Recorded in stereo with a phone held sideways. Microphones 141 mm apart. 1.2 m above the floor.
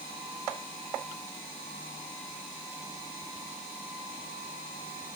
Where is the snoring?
No snoring in this recording.